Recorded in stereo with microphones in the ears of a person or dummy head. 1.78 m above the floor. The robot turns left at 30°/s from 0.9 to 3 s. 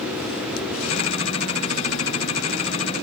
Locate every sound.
Only background noise.